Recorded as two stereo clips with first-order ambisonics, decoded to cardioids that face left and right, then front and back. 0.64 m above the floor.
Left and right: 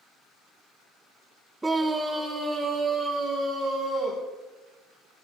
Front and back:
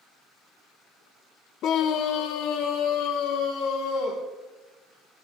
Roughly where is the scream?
Ahead.